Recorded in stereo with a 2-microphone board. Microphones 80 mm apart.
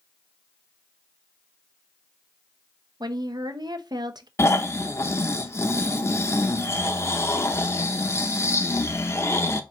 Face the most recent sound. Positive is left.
turn(degrees=35)  # may be behind; listen again after turning